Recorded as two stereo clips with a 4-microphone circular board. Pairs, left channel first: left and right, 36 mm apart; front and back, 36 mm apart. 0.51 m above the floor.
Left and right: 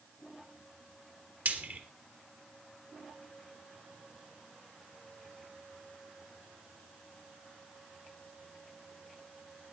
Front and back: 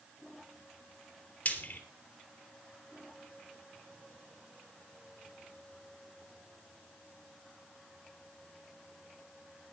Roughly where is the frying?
Ahead right.